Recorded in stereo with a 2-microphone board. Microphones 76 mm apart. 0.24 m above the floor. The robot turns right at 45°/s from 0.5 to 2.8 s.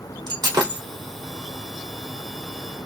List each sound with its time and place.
0.3 s breaking glass: 85° right, 2 m; by 0.8 s 80° right, 2 m